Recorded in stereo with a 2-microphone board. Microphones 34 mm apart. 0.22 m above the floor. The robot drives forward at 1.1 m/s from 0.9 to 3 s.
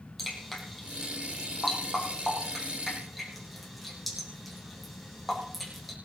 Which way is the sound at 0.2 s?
Centre (ahead or behind).